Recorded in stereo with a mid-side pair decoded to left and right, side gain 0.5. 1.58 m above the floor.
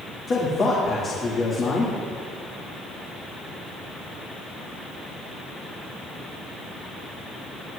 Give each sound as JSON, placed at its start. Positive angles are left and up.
{"t": 0.3, "sound": "a man speaking", "azimuth_deg": 40, "distance_m": 2.5}